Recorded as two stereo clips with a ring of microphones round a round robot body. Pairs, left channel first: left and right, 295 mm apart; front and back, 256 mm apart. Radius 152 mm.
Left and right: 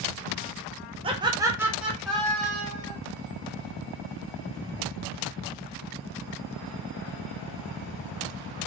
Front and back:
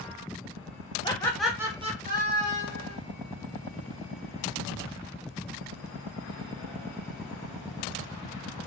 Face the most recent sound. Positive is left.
turn(degrees=165)